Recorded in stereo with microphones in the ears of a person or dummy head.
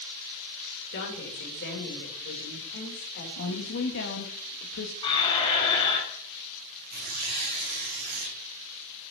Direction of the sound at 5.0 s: 30° left (ahead or behind).